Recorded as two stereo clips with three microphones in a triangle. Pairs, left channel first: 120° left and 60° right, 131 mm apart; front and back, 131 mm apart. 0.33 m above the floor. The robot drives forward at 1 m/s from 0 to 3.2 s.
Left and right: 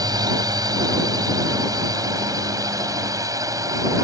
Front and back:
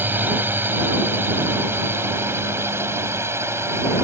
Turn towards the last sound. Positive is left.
turn(degrees=-115)